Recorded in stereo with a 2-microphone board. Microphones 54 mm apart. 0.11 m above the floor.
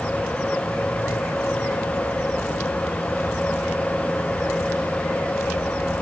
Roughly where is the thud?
I don't hear a thud.